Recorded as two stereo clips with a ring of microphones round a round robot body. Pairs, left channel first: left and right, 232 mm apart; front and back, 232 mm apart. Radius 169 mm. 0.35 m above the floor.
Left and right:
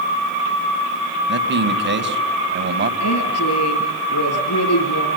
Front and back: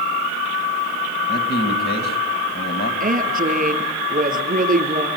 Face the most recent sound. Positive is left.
turn(degrees=125)